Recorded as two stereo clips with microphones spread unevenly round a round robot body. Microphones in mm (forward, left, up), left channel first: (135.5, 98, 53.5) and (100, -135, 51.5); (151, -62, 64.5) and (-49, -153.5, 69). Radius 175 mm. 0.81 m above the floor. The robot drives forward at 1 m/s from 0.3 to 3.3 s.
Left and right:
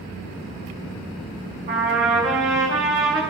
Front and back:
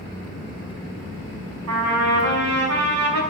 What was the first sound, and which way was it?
A trumpet, 175° right.